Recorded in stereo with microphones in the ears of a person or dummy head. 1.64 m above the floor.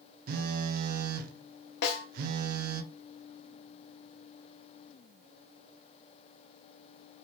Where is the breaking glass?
No breaking glass in this recording.